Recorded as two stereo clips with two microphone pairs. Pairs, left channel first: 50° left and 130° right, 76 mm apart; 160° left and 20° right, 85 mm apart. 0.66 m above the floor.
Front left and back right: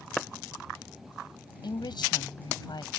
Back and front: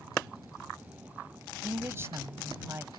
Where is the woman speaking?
40° left.